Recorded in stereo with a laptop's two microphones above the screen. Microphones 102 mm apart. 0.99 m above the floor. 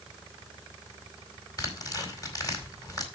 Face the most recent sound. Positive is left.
turn(degrees=35)  # may be behind; listen again after turning